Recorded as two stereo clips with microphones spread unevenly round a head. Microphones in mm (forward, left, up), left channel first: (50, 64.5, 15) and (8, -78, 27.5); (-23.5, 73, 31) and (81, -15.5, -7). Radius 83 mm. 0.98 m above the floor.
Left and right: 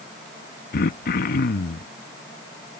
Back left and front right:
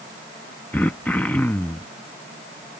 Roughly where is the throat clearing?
Ahead left.